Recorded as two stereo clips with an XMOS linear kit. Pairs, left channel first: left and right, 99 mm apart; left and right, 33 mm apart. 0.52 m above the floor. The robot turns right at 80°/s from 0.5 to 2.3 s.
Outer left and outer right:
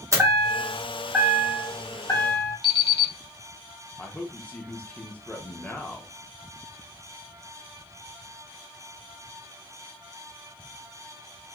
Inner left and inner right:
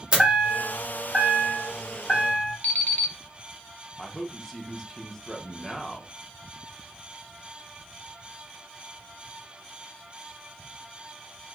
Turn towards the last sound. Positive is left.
turn(degrees=15)  # may be behind; listen again after turning